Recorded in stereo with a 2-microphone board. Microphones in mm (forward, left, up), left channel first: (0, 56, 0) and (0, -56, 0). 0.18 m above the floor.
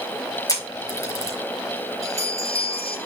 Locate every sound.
0.5 s a camera shutter: 30° left (ahead or behind), 6 m
2.0 s a bell: 25° right (ahead or behind), 5 m